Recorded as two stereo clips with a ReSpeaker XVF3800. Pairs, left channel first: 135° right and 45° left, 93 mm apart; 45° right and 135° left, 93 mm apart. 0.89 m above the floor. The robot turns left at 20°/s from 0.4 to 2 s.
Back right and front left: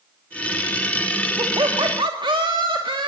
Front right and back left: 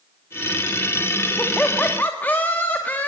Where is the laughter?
35° left, 1.9 m; by 3.1 s 25° left, 1.9 m.